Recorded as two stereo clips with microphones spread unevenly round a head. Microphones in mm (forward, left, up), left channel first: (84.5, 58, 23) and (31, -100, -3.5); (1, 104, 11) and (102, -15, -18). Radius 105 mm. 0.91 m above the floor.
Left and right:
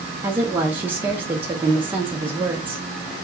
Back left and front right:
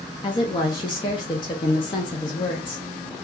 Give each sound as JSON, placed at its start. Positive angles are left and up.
{"t": 0.2, "sound": "a woman speaking", "azimuth_deg": -165, "distance_m": 0.6}